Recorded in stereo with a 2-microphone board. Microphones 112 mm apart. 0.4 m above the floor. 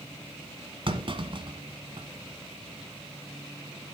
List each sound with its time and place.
0.9 s a clunk: 50° right (ahead or behind), 1.5 m